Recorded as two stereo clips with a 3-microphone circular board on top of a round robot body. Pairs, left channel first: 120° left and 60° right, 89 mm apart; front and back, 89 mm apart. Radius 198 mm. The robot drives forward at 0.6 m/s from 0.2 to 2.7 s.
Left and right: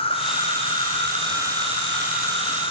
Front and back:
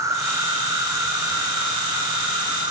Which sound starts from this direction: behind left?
An insect, at 0.0 s.